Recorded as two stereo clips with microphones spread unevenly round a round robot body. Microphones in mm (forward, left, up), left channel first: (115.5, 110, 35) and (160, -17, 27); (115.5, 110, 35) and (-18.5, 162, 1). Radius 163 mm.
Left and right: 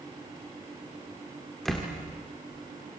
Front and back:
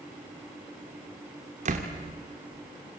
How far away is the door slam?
About 1.6 m.